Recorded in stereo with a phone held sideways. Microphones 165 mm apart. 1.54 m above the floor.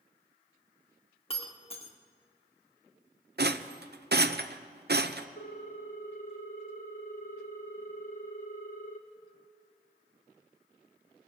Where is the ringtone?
60° left (ahead or behind), 1.1 m.